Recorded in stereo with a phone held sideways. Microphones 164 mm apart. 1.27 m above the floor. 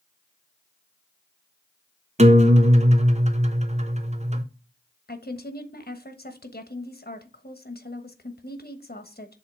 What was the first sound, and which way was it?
A guitar, 45° right (ahead or behind).